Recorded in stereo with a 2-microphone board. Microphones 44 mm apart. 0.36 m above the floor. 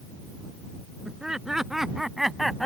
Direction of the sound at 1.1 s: 15° right (ahead or behind).